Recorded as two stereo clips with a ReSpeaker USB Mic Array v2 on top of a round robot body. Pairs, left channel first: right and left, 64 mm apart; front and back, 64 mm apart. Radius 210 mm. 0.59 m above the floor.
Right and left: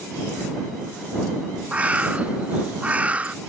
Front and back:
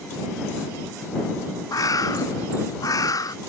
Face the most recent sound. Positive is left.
turn(degrees=20)